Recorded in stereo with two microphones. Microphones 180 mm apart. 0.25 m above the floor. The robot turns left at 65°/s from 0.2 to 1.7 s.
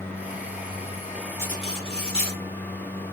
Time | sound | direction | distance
1.4 | cutlery clinking | 15° left (ahead or behind) | 2 m